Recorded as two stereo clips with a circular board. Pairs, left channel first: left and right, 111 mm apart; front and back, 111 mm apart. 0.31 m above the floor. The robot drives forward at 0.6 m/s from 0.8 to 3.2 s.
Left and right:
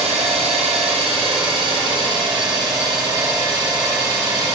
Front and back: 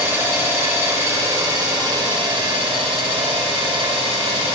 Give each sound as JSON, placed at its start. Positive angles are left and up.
{"t": 0.0, "sound": "an engine running", "azimuth_deg": -110, "distance_m": 1.5}